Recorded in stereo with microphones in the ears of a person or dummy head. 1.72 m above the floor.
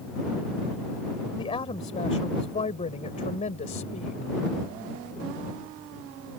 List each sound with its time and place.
1.4 s a woman speaking: 20° left (ahead or behind); by 4.3 s 35° left (ahead or behind)